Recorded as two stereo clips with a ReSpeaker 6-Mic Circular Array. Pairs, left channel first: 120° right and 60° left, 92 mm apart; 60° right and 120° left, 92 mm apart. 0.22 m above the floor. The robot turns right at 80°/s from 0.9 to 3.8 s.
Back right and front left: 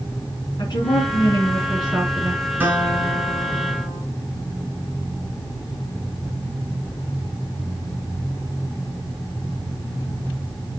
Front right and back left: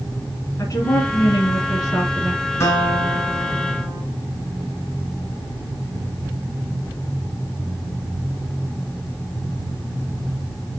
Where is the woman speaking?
105° right, 2.5 m; by 2.4 s 15° left, 2.5 m.